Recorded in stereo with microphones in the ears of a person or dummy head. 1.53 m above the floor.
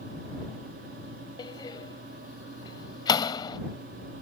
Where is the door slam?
25° left (ahead or behind).